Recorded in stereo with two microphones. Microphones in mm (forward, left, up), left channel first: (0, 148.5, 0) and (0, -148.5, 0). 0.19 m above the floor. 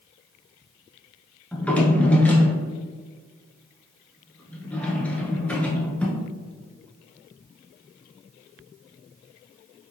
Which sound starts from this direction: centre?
A drawer, at 1.5 s.